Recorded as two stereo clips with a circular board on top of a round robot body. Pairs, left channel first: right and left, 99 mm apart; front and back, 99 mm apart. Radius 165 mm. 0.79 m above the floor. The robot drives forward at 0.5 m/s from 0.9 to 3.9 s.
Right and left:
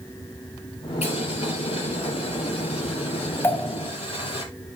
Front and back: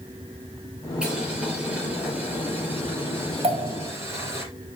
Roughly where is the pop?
Behind right.